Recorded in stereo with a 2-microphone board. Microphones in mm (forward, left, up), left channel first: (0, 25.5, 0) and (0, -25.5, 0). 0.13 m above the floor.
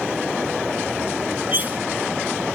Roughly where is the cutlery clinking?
Right.